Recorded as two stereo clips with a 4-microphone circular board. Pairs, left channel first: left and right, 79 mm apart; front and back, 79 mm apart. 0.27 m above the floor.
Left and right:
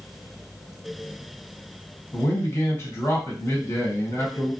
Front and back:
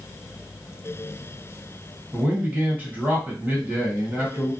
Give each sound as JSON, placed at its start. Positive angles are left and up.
{"t": 2.1, "sound": "a man speaking", "azimuth_deg": 120, "distance_m": 1.7}